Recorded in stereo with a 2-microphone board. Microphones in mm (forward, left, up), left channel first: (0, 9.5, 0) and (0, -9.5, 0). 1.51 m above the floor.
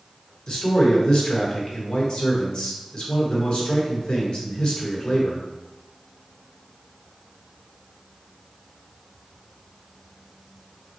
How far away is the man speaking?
About 1.2 m.